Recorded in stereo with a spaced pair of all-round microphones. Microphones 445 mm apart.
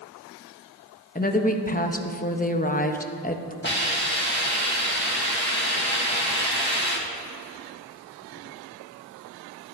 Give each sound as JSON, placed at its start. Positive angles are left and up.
{"t": 1.1, "sound": "a woman speaking", "side_deg": 20, "distance_m": 0.6}
{"t": 3.6, "sound": "a hiss", "side_deg": 25, "distance_m": 1.5}